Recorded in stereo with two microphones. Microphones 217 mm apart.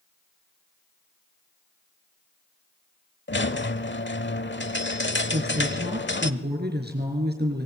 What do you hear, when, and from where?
3.3 s a squeak: 65° left (ahead or behind), 0.9 m
5.3 s a woman speaking: 55° right (ahead or behind), 6 m